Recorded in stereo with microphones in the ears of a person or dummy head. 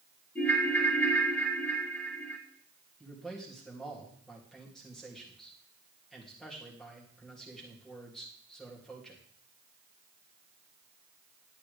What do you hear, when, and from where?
0.3 s a ringtone: 5° left (ahead or behind), 1.0 m
3.0 s a man speaking: centre (ahead or behind), 2.5 m